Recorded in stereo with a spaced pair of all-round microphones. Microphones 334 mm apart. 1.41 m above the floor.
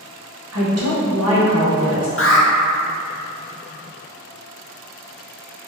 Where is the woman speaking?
45° right (ahead or behind), 1.1 m.